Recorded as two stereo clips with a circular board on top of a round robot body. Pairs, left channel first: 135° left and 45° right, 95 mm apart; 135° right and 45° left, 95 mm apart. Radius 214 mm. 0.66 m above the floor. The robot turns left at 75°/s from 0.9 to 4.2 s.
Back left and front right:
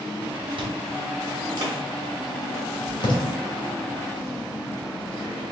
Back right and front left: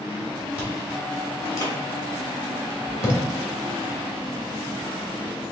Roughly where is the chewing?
Ahead right.